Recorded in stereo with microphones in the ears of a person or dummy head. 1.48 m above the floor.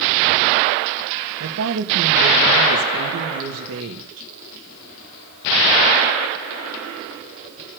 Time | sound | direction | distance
1.4 | a woman speaking | 85° right | 2.5 m